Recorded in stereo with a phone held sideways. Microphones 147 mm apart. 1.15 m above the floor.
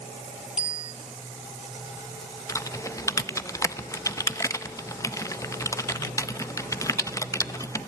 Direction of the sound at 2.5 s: 20° left (ahead or behind).